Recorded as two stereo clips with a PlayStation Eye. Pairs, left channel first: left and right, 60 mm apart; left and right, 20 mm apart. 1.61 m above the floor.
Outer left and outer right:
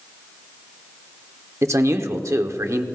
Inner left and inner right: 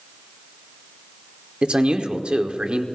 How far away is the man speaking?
About 1.2 m.